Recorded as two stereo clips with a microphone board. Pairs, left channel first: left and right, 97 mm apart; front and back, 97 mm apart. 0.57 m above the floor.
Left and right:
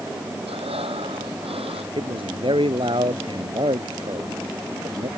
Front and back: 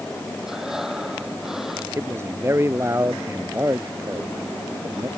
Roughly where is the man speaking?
Behind right.